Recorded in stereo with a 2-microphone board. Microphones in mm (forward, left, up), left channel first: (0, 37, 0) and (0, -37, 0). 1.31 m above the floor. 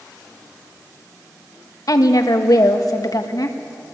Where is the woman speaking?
55° left (ahead or behind), 1.9 m.